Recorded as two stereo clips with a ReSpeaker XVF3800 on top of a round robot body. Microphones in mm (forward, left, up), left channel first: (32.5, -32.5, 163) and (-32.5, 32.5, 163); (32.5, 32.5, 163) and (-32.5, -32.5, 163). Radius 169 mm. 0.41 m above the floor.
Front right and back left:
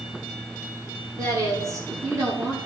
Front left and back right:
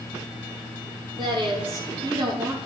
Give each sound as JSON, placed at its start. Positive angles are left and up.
{"t": 1.2, "sound": "a woman speaking", "azimuth_deg": -175, "distance_m": 8.5}